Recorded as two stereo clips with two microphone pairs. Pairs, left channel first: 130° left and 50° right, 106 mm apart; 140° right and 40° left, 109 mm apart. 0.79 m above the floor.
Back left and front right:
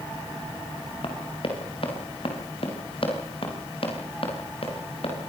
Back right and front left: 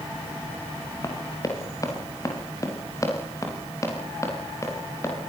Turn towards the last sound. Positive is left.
turn(degrees=155)